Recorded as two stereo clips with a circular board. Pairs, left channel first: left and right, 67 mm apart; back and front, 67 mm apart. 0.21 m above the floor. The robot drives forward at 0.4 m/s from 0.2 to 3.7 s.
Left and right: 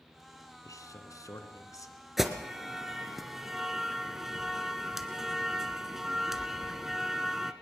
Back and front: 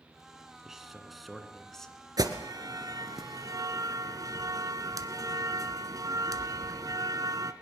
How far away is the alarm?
About 2 m.